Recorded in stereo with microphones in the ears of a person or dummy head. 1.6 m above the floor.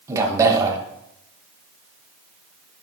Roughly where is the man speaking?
Centre.